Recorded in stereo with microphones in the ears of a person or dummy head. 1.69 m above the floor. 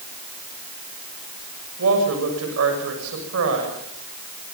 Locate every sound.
1.8 s a woman speaking: 80° right, 7 m